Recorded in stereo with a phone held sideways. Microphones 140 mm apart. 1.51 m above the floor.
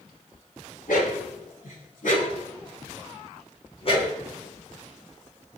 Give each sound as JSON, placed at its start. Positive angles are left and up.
{"t": 0.9, "sound": "a dog barking", "side_deg": 75, "distance_m": 6.0}